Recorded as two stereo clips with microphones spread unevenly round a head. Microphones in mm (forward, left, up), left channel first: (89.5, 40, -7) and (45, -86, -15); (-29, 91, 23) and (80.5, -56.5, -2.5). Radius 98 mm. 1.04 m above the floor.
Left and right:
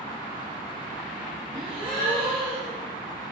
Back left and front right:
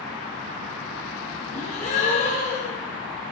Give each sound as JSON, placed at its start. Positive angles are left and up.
{"t": 1.5, "sound": "a gasp", "azimuth_deg": -175, "distance_m": 1.3}